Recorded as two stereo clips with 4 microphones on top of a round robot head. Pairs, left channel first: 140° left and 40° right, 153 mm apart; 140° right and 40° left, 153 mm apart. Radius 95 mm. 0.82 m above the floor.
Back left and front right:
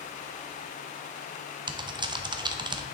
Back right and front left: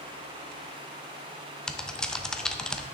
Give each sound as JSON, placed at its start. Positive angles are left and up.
{"t": 1.7, "sound": "typing on a keyboard", "azimuth_deg": -60, "distance_m": 0.8}